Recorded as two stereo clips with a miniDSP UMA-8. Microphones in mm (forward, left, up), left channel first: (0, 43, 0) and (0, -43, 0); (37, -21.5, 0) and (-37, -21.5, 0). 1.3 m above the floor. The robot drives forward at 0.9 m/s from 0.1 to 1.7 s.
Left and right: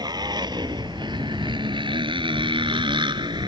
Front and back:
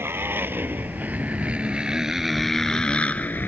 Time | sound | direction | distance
0.0 | a motorcycle | 125° right | ?